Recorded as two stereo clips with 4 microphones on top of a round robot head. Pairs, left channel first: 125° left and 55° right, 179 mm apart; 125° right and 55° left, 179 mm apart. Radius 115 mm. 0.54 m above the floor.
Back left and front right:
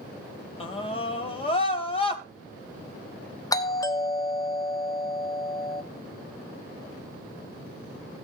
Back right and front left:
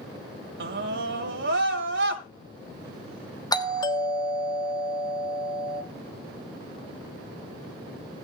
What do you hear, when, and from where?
0.6 s a scream: 70° left, 3 m
3.5 s a doorbell: straight behind, 1.5 m